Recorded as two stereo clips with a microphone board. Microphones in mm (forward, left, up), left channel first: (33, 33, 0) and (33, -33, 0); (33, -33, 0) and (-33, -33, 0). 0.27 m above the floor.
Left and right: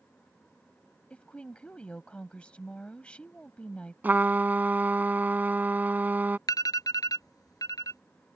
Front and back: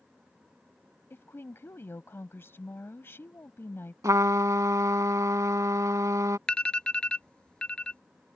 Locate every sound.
1.1 s a woman speaking: 25° left
4.0 s a trumpet: 150° right
6.5 s an alarm: 75° left